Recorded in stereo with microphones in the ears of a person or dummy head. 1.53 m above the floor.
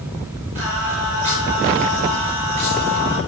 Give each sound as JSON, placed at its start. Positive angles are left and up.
{"t": 0.6, "sound": "singing", "side_deg": -35, "distance_m": 9.0}